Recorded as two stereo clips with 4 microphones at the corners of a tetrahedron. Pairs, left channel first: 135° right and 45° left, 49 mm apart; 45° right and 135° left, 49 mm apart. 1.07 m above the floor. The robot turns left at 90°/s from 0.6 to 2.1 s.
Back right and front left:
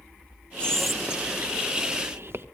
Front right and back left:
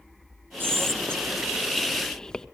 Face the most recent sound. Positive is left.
turn(degrees=30)